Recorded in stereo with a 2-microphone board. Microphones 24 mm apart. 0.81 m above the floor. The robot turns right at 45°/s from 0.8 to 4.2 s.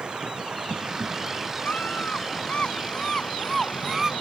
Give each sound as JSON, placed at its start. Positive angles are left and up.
{"t": 0.0, "sound": "running water", "azimuth_deg": -45}
{"t": 1.6, "sound": "a scream", "azimuth_deg": 85}